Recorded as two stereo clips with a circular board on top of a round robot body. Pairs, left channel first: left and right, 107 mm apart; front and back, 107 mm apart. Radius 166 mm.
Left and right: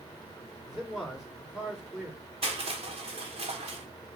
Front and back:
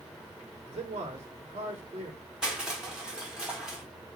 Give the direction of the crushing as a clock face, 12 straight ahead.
3 o'clock.